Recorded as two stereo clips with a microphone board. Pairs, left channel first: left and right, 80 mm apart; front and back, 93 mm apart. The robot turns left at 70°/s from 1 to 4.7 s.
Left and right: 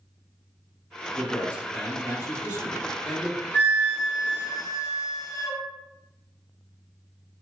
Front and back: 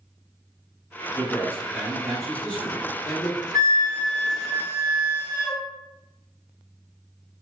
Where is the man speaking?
155° left, 1.2 m; by 3.4 s 5° right, 1.2 m.